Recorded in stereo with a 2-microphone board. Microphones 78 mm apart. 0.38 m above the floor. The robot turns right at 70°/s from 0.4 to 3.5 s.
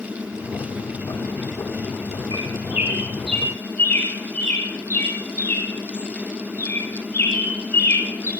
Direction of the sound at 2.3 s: 55° right (ahead or behind).